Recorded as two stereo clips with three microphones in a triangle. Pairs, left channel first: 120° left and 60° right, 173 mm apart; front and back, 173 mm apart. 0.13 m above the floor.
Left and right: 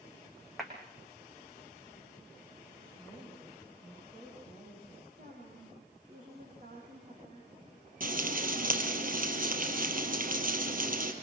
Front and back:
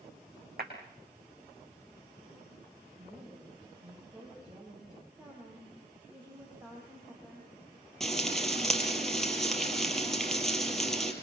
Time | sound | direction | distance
0.6 | a clap | 150° right | 6 m
3.0 | a woman speaking | 115° right | 10 m
5.2 | a woman speaking | 100° right | 7 m
8.0 | frying | 90° right | 3.5 m